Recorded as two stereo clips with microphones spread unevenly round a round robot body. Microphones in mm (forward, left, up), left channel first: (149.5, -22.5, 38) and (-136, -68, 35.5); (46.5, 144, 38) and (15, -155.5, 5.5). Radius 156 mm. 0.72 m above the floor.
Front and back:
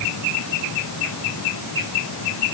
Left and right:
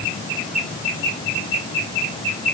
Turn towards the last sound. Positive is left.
No sound to turn to.